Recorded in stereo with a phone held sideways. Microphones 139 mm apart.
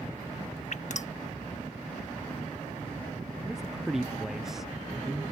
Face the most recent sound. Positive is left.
turn(degrees=-5)  # may be behind; listen again after turning